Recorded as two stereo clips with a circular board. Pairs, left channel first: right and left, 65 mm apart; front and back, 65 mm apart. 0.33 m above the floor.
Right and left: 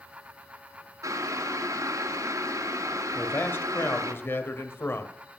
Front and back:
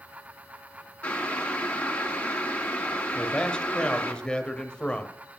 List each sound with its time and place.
1.0 s boiling: 70° left, 1.7 m
3.1 s a man speaking: 65° right, 1.1 m